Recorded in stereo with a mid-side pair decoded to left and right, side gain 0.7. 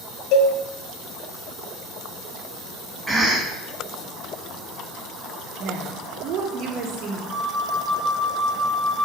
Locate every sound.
0.3 s a cowbell: 60° left, 0.6 m
3.1 s a cough: 10° right, 1.3 m
5.6 s a woman speaking: 50° right, 0.8 m
7.3 s a flute: 35° right, 0.7 m